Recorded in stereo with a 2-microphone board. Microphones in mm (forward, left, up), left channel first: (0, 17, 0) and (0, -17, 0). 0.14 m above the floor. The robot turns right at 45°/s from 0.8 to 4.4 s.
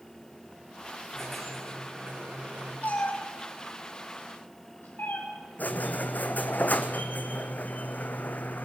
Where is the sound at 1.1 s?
160° left, 5.5 m; by 2.7 s 125° right, 5.5 m.